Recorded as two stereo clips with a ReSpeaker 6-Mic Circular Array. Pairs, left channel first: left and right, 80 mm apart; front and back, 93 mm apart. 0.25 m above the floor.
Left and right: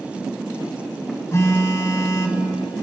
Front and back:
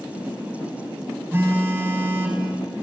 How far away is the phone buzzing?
About 0.9 m.